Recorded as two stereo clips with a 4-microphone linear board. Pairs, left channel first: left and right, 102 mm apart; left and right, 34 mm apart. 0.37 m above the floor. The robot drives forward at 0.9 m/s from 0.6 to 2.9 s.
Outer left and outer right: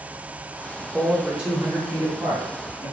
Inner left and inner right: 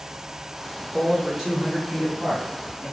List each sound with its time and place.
0.8 s a man speaking: 10° right (ahead or behind), 0.8 m; by 2.9 s 5° right (ahead or behind), 1.8 m